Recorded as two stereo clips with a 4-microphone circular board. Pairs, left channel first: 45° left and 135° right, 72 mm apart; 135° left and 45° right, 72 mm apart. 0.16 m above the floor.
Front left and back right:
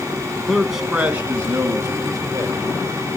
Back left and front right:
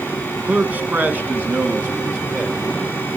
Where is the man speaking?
15° right, 1.1 m; by 2.6 s 105° right, 2 m.